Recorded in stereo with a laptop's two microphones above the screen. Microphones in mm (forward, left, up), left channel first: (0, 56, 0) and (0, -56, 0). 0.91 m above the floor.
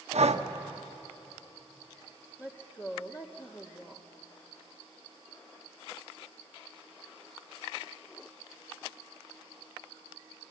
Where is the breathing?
80° right, 1.1 m.